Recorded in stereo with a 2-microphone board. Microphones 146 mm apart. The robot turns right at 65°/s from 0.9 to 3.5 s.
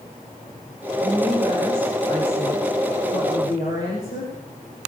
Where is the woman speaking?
35° right, 9 m; by 4.3 s 125° left, 9 m.